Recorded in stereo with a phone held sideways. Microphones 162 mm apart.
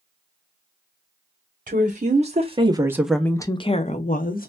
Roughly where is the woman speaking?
Right.